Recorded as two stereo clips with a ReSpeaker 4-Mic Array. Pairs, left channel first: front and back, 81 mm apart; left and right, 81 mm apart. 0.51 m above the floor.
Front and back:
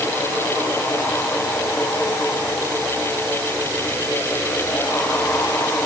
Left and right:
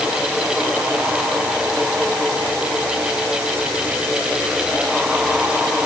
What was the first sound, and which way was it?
Only background noise.